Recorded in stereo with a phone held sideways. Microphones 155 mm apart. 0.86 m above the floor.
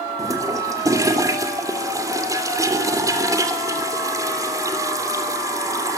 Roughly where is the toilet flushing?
Right.